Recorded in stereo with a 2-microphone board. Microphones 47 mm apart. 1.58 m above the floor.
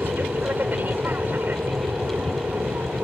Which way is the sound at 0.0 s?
45° right (ahead or behind).